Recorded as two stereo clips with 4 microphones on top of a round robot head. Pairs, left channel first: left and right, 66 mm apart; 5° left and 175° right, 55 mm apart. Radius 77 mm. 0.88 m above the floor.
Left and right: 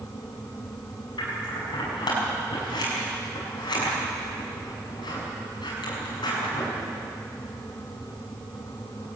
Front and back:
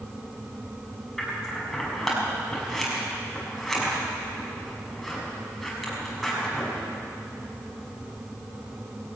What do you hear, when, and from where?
1.2 s scissors: 95° left, 6.5 m